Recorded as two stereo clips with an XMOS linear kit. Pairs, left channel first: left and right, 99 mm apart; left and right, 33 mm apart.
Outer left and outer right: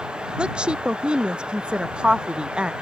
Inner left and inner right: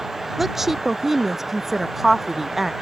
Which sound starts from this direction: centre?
A woman speaking, at 0.4 s.